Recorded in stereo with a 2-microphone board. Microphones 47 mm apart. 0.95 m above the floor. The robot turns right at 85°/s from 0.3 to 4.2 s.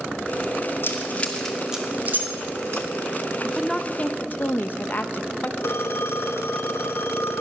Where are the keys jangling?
65° left (ahead or behind), 1.5 m; by 2.9 s 70° right (ahead or behind), 1.5 m.